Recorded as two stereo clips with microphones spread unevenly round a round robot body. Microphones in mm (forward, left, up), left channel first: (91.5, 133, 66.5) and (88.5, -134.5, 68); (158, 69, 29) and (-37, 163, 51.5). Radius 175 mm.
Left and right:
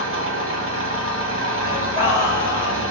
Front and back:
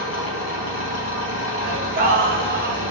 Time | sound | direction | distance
0.0 | an engine running | 50° right | 1.1 m
1.6 | singing | 170° right | 0.9 m